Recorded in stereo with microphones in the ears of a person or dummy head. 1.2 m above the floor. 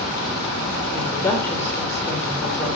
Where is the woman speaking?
10° left (ahead or behind), 3.5 m.